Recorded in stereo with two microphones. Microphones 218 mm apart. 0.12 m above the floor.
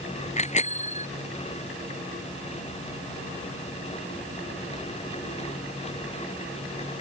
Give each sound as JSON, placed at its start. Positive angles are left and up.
{"t": 0.4, "sound": "a bicycle bell", "side_deg": 30}